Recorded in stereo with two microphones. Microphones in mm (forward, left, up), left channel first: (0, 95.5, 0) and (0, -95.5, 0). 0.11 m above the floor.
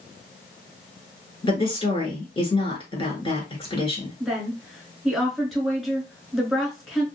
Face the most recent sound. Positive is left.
turn(degrees=0)  # may be behind; listen again after turning